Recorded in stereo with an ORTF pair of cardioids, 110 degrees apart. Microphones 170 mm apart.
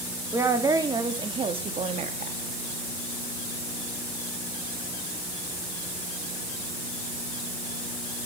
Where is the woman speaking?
15° right, 3 m; by 2.4 s 45° right, 2.5 m.